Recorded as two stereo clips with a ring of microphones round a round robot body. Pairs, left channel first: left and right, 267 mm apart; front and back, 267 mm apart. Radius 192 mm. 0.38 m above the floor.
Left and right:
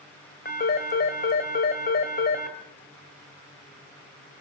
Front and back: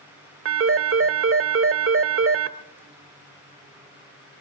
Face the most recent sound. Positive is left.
turn(degrees=150)